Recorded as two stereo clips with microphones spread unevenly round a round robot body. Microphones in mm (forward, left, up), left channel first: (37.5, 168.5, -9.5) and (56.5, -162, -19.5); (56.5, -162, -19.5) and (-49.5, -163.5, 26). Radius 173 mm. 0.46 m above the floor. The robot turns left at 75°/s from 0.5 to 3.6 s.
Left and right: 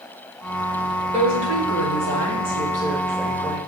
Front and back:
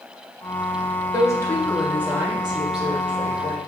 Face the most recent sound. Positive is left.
turn(degrees=155)